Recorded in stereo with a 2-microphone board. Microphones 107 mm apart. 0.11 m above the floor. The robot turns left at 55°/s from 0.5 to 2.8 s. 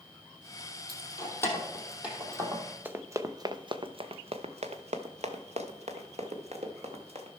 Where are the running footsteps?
20° right (ahead or behind), 0.9 m; by 7.3 s 70° right (ahead or behind), 2 m.